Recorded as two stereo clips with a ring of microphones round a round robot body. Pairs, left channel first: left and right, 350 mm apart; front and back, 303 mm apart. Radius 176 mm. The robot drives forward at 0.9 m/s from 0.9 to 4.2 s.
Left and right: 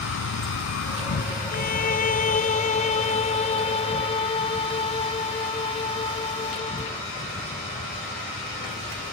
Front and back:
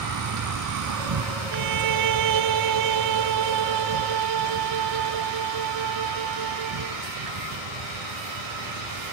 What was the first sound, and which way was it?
An insect, 145° left.